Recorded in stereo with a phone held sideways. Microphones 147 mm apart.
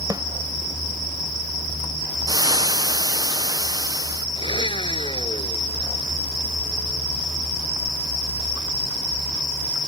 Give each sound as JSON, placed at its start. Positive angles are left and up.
{"t": 0.1, "sound": "a snare drum", "side_deg": -25}
{"t": 2.3, "sound": "frying", "side_deg": -25}
{"t": 4.4, "sound": "a blender", "side_deg": 35}